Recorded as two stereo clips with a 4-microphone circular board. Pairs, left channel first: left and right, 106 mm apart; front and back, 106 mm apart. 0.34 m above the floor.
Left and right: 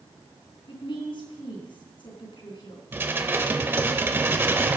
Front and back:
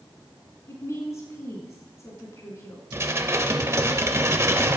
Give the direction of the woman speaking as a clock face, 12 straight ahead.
10 o'clock.